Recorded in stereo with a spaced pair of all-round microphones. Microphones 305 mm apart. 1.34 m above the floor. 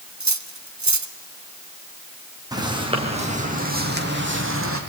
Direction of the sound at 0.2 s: 65° right (ahead or behind).